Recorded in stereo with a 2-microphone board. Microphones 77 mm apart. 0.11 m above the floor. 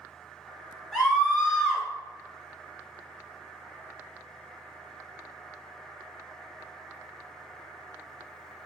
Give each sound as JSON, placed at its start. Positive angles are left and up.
{"t": 0.9, "sound": "a scream", "side_deg": 5, "distance_m": 1.9}